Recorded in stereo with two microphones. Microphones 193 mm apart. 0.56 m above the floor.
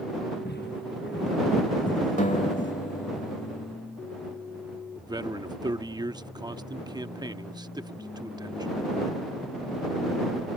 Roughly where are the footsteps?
Left.